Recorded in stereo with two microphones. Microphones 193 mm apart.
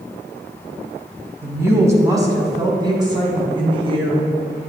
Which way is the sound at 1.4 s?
10° right (ahead or behind).